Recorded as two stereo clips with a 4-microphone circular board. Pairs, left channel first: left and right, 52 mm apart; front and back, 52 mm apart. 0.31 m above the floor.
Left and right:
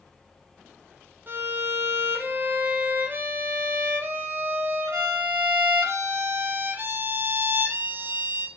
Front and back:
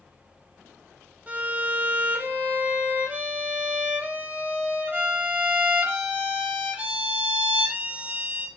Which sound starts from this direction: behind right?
A violin, at 1.3 s.